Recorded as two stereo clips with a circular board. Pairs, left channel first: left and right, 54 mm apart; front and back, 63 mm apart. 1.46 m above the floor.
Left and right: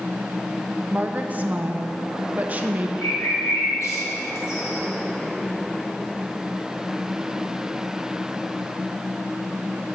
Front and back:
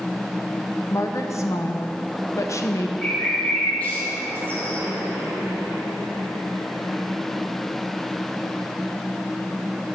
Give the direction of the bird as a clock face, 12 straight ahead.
10 o'clock.